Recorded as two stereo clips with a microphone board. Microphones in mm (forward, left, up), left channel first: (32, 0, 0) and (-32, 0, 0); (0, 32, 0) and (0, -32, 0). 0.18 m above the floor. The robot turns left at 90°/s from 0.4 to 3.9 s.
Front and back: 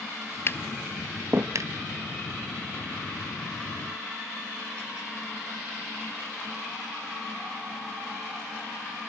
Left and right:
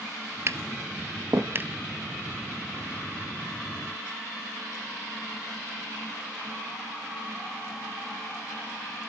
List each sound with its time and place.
0.5 s tapping: 45° right, 0.9 m; by 1.7 s 160° right, 0.9 m